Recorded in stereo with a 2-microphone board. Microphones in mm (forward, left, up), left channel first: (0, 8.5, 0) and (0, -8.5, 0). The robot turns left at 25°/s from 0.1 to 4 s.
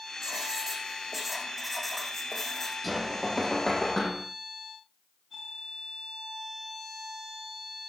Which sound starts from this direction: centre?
Knocking, at 2.8 s.